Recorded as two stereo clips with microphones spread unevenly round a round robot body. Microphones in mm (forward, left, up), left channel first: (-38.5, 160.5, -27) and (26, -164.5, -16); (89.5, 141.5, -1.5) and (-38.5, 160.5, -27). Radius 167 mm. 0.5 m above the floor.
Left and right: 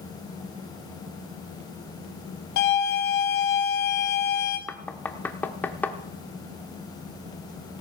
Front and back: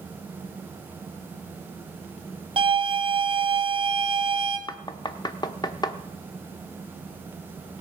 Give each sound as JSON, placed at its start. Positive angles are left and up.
{"t": 2.6, "sound": "a violin", "azimuth_deg": 140, "distance_m": 3.0}
{"t": 4.7, "sound": "knocking", "azimuth_deg": 30, "distance_m": 0.7}